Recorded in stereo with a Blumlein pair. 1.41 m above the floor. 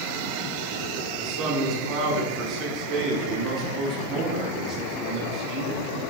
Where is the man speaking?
35° right, 1.3 m.